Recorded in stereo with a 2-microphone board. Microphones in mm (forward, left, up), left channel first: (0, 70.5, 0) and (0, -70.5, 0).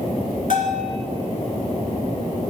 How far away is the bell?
About 1.4 m.